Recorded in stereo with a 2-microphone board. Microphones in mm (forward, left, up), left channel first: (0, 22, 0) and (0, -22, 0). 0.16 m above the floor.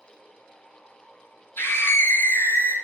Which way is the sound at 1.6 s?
60° left (ahead or behind).